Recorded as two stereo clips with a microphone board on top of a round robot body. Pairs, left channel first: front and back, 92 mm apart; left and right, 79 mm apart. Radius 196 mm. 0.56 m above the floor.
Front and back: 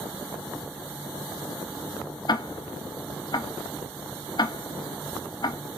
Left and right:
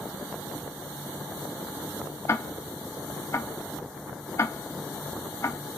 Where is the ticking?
40° left, 0.7 m.